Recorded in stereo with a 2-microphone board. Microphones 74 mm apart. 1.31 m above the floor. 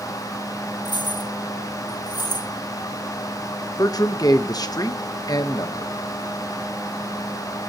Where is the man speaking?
60° left (ahead or behind), 1.1 m.